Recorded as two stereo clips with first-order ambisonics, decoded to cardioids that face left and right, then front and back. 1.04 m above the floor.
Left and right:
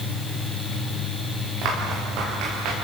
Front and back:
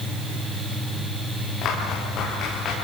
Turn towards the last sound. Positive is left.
turn(degrees=-60)